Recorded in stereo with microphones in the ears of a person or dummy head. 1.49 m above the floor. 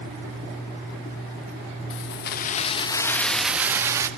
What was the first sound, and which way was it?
Keys jangling, 65° left (ahead or behind).